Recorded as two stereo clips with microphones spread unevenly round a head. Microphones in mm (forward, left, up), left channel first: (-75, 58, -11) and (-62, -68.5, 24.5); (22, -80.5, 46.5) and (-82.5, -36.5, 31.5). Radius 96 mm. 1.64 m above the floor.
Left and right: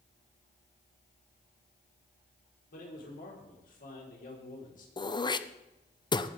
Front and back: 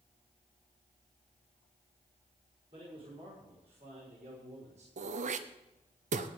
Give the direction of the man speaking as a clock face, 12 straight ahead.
9 o'clock.